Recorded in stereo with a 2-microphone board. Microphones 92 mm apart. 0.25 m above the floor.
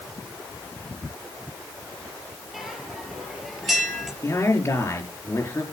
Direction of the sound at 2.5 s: Centre (ahead or behind).